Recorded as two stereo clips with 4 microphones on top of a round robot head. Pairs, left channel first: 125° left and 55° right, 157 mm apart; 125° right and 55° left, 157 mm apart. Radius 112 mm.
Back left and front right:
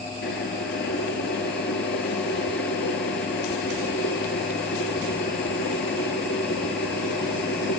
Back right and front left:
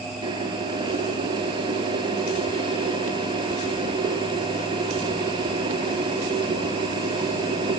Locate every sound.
0.2 s boiling: 115° left, 3 m